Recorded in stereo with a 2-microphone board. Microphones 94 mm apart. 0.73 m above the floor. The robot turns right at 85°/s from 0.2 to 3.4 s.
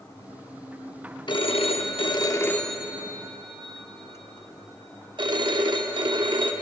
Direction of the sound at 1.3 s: 55° left.